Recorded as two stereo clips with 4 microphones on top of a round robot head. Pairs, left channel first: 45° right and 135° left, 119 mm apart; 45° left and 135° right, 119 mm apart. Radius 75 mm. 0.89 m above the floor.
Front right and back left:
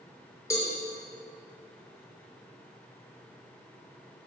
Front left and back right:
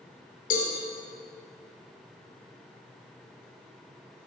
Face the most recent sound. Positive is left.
turn(degrees=25)